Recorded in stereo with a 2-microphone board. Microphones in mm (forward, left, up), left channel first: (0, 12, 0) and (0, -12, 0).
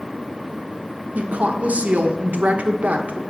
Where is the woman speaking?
75° right (ahead or behind), 1.0 m.